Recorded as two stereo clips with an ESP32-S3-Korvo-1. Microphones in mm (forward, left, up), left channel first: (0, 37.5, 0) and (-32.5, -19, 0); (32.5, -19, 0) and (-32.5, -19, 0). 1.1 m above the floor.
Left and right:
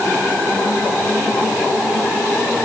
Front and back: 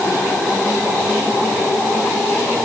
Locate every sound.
Only background noise.